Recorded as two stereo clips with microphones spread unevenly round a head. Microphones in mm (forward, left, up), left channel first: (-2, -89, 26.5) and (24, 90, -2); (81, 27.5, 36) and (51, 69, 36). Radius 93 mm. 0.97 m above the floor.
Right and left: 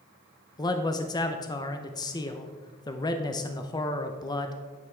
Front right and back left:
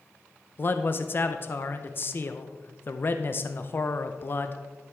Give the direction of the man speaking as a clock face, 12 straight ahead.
1 o'clock.